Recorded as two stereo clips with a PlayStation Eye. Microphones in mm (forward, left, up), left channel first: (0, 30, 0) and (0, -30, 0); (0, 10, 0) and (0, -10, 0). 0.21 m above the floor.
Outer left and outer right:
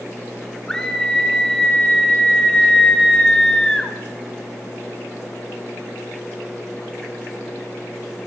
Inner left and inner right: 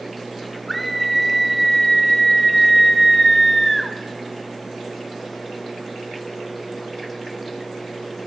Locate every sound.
0.7 s a scream: 10° left (ahead or behind), 1.0 m